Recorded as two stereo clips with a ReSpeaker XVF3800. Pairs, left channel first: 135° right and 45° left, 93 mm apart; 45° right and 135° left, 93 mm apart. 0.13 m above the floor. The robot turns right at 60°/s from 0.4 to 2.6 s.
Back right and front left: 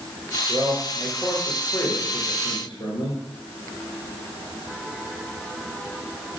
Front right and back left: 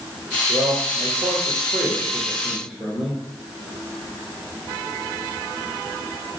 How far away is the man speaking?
About 1.7 m.